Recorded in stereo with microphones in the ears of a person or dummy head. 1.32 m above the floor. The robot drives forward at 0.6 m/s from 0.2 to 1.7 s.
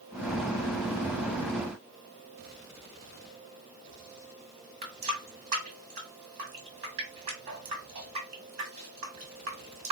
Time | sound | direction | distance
4.8 | a running tap | 40° right (ahead or behind) | 1.4 m